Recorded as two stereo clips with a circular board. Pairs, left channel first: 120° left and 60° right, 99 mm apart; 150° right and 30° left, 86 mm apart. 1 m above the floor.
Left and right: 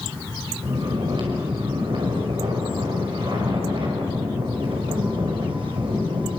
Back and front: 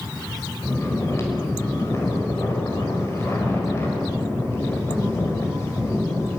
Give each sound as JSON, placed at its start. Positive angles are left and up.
{"t": 0.6, "sound": "snoring", "azimuth_deg": -90, "distance_m": 5.5}